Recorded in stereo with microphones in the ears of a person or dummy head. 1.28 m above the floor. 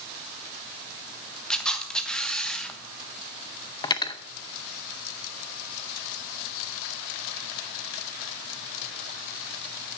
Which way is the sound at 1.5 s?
5° left (ahead or behind).